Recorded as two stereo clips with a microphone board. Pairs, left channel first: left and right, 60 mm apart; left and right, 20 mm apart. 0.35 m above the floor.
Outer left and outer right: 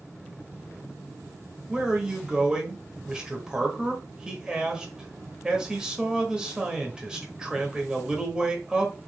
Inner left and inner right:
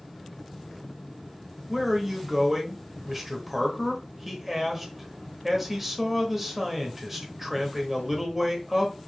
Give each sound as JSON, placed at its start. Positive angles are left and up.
{"t": 1.7, "sound": "a man speaking", "side_deg": -15, "distance_m": 1.1}